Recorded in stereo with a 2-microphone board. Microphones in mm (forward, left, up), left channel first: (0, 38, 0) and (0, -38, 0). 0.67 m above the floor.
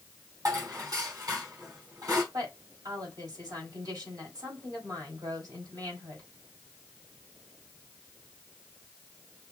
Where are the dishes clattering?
55° right (ahead or behind), 3.5 m.